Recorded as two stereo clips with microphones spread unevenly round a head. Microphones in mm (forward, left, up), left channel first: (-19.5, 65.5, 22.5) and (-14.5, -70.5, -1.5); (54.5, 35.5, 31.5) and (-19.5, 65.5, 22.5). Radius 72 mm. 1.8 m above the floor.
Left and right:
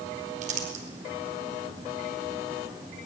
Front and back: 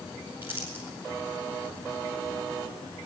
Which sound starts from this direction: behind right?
Crumpling, at 0.4 s.